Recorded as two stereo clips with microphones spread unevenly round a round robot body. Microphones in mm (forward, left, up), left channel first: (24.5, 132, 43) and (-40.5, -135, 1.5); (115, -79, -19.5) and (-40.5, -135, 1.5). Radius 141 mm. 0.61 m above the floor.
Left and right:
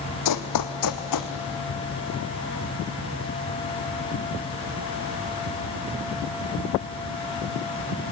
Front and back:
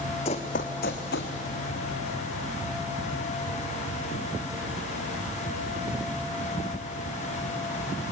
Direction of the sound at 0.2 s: 85° left.